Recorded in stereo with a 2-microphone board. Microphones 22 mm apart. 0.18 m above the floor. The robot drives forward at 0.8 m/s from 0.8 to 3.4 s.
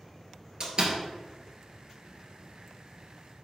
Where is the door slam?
45° right (ahead or behind), 2 m.